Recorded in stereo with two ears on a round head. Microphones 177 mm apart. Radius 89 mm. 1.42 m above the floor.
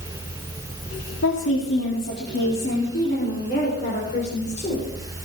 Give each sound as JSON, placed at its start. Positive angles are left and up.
{"t": 1.2, "sound": "a woman speaking", "side_deg": 75, "distance_m": 3.5}